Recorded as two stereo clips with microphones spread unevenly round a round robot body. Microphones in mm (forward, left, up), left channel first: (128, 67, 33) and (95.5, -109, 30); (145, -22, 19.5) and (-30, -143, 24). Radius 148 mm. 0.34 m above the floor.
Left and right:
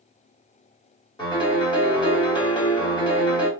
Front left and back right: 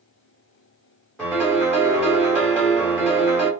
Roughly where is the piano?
Behind left.